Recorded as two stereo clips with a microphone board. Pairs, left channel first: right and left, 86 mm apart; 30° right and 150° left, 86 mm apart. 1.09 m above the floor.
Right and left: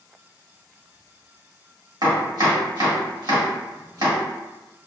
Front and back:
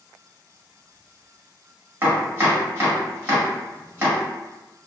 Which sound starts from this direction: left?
Chopping, at 2.0 s.